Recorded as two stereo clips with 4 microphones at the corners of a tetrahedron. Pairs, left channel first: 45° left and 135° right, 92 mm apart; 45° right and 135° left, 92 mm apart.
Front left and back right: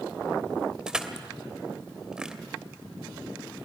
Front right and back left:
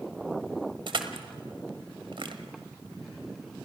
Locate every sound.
0.9 s crushing: 145° left, 1.5 m